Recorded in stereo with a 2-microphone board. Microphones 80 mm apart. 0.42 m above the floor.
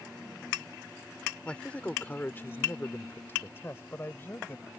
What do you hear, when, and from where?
1.4 s a man speaking: 15° left (ahead or behind); by 4.7 s 30° left (ahead or behind)